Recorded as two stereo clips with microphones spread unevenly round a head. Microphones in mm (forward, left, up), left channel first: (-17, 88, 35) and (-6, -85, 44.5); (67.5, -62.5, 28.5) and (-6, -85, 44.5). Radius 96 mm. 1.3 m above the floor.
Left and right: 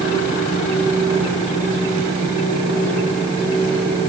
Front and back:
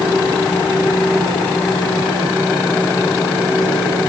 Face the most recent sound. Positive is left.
No sound to turn to.